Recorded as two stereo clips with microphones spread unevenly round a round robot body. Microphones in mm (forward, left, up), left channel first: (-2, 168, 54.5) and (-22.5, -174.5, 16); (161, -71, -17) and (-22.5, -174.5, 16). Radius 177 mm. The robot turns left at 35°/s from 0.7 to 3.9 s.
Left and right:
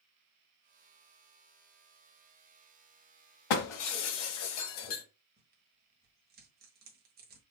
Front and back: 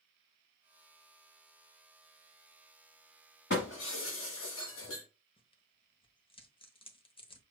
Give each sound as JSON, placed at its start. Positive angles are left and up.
{"t": 3.5, "sound": "breaking glass", "azimuth_deg": 90, "distance_m": 1.3}
{"t": 5.4, "sound": "tearing paper", "azimuth_deg": -35, "distance_m": 1.0}